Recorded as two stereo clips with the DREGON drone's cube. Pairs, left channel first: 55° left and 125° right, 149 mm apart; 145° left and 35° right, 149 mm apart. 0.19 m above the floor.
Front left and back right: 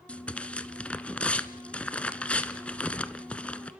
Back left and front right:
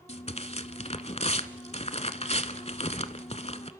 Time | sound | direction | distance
0.1 | tearing paper | 135° left | 1.0 m